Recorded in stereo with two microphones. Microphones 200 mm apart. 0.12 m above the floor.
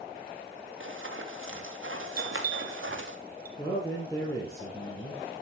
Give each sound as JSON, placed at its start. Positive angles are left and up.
{"t": 0.8, "sound": "running footsteps", "side_deg": -75, "distance_m": 3.0}
{"t": 2.2, "sound": "a bell", "side_deg": -50, "distance_m": 1.6}
{"t": 3.6, "sound": "a man speaking", "side_deg": 15, "distance_m": 3.0}